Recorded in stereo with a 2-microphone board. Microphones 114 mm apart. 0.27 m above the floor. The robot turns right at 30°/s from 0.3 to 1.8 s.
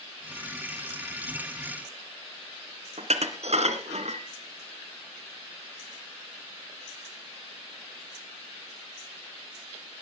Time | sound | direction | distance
3.0 | dishes clattering | 70° right (ahead or behind) | 2 m